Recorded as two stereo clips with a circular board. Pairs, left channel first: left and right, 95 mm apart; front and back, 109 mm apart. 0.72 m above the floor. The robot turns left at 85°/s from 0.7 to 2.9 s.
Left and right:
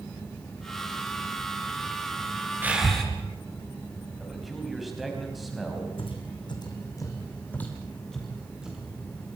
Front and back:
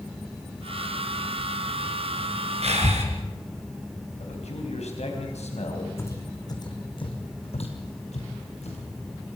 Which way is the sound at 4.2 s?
Straight ahead.